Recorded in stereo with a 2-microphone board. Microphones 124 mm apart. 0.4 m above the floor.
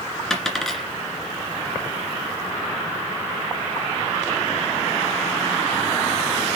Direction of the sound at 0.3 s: 5° left (ahead or behind).